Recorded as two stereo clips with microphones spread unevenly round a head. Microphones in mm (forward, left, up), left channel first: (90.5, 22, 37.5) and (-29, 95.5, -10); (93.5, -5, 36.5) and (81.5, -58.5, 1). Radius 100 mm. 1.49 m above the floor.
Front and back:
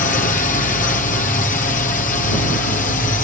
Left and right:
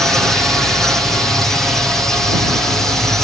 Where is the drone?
50° right.